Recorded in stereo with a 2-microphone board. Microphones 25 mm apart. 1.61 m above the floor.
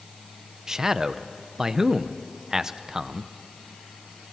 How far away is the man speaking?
About 0.7 m.